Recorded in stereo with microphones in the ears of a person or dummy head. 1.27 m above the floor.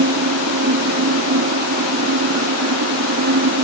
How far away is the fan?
About 0.9 m.